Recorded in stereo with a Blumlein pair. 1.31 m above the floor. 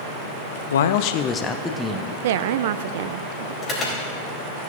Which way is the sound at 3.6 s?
25° left.